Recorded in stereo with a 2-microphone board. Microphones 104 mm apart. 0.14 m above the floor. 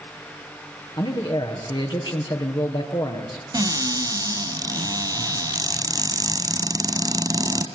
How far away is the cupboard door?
About 1.5 m.